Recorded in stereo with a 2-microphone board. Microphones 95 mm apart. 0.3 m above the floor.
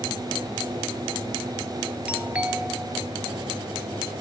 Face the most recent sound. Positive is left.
turn(degrees=-10)  # may be behind; listen again after turning